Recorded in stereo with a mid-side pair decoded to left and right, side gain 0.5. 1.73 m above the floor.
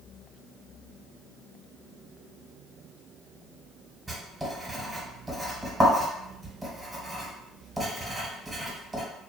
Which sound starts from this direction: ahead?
Writing, at 4.1 s.